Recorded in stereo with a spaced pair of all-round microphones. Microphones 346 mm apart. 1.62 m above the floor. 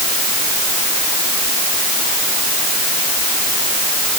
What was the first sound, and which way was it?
Only background noise.